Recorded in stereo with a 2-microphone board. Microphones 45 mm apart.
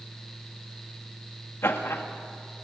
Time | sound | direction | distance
1.6 | laughter | 65° left (ahead or behind) | 2 m